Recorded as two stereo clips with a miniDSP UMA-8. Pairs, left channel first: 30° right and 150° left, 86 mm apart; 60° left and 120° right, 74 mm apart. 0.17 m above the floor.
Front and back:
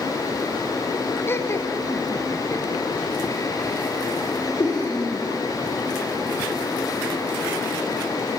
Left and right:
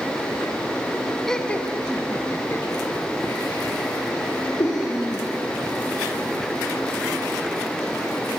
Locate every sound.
1.3 s laughter: 15° right, 1.3 m; by 5.3 s 20° left, 6 m